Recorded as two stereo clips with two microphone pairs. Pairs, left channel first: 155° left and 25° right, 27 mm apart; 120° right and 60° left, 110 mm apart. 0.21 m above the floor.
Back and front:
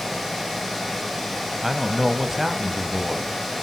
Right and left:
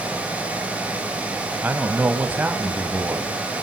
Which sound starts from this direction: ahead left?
A man speaking, at 1.6 s.